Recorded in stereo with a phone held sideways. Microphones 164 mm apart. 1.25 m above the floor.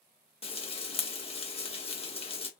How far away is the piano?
No piano in this recording.